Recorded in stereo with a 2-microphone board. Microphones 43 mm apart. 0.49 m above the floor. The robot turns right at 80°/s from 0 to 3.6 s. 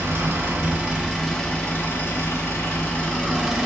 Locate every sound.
0.0 s an engine running: 100° right, 2.5 m; by 3.7 s 175° right, 2.5 m